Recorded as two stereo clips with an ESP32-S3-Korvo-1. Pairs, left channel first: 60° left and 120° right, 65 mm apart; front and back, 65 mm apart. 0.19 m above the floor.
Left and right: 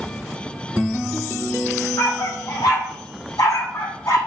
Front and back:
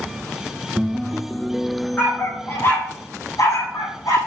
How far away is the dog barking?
About 2 m.